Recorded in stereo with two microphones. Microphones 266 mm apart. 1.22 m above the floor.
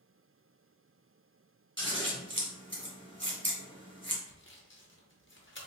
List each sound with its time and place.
1.8 s scissors: 45° right (ahead or behind), 1.2 m
4.3 s sawing: 45° left (ahead or behind), 0.9 m